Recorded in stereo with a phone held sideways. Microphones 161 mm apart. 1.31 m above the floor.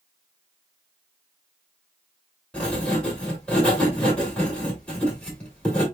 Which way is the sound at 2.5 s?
5° left (ahead or behind).